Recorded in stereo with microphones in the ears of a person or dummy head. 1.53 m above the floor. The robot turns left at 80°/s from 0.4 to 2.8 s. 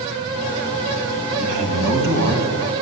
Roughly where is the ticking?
I don't hear ticking.